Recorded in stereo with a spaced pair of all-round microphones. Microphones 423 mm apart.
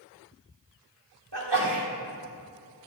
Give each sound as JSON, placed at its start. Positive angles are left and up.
{"t": 1.3, "sound": "a sneeze", "side_deg": -70, "distance_m": 1.8}